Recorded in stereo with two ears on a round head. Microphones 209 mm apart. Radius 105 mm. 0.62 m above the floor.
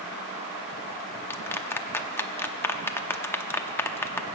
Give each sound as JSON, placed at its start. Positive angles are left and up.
{"t": 1.3, "sound": "a clap", "side_deg": 10, "distance_m": 0.6}